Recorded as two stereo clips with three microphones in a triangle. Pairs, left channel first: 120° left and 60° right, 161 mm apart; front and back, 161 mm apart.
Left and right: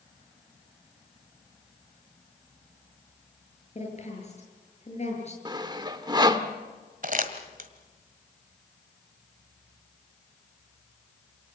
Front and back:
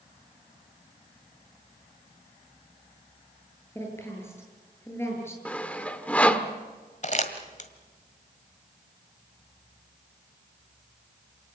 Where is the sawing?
70° right, 1.3 m.